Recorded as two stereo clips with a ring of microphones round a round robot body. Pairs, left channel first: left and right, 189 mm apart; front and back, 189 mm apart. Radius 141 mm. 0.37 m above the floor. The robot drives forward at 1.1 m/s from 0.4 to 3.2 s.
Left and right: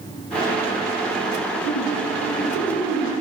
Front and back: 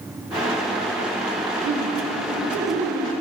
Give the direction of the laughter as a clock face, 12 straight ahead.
6 o'clock.